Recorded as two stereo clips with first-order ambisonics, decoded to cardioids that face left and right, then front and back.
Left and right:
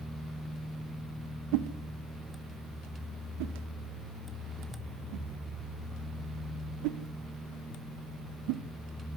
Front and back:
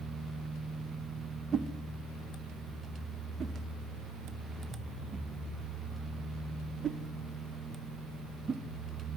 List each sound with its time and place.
1.5 s a whoosh: 110° right, 0.8 m